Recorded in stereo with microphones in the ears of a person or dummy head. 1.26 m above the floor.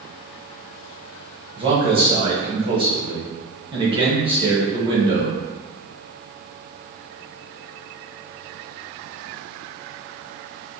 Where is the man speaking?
25° right (ahead or behind), 0.8 m.